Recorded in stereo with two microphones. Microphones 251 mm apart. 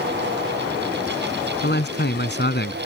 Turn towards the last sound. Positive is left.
turn(degrees=45)  # may be behind; listen again after turning